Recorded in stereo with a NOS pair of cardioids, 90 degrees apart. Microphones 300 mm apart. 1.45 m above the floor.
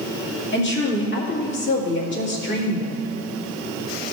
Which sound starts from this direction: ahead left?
A woman speaking, at 0.5 s.